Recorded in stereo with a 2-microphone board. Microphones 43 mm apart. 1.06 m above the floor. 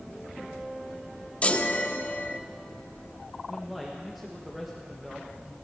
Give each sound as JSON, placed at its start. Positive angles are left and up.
{"t": 1.4, "sound": "a chime", "side_deg": 30, "distance_m": 0.7}
{"t": 3.5, "sound": "a man speaking", "side_deg": -5, "distance_m": 1.4}